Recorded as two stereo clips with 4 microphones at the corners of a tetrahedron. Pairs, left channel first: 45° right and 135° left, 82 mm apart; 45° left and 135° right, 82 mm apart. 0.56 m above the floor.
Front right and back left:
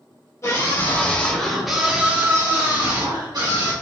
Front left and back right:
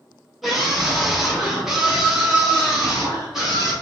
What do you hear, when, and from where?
0.4 s a scream: 45° right, 1.3 m; by 3.7 s 145° left, 1.9 m